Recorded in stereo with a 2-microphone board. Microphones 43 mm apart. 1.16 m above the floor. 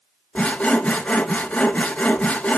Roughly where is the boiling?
I don't hear boiling.